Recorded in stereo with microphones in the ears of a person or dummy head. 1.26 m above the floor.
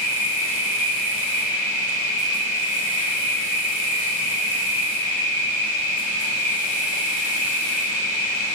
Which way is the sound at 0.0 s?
70° left (ahead or behind).